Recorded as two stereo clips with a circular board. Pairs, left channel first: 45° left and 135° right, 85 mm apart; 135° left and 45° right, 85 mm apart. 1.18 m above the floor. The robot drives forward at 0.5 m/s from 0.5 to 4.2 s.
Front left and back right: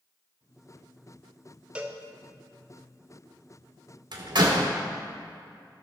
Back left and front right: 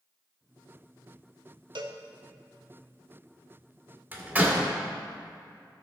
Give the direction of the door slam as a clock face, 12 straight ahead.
4 o'clock.